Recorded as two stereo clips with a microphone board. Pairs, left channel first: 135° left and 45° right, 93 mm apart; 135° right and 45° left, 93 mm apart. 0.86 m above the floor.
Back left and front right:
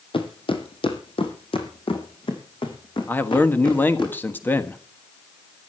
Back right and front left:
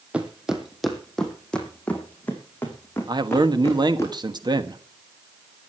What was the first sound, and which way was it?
Footsteps, 125° left.